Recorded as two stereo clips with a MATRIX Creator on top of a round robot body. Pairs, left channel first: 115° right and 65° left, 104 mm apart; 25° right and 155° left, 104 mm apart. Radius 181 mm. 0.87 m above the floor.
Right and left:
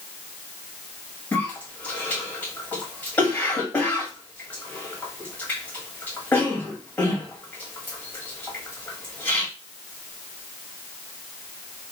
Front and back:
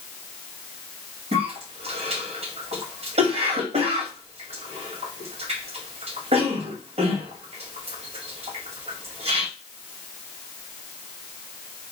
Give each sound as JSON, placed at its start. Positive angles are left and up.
{"t": 1.3, "sound": "a cough", "azimuth_deg": 175, "distance_m": 2.0}